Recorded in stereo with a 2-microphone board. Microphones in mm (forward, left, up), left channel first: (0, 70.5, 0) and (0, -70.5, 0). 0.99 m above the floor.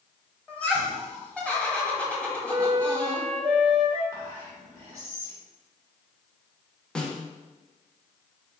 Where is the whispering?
25° right (ahead or behind), 1.6 m.